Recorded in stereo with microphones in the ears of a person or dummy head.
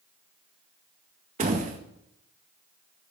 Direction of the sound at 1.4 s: 30° right (ahead or behind).